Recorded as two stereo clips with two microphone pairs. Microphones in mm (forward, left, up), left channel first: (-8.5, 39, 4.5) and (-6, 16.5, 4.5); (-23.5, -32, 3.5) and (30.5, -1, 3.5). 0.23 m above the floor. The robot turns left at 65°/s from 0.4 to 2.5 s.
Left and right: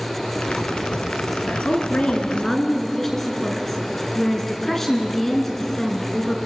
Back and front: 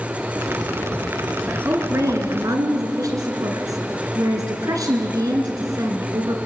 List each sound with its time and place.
1.5 s a woman speaking: 95° left, 2.5 m; by 6.4 s 25° left, 2.5 m